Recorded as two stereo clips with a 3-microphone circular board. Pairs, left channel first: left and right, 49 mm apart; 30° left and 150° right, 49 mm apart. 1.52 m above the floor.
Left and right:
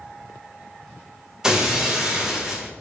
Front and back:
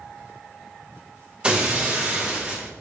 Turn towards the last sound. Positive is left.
turn(degrees=-140)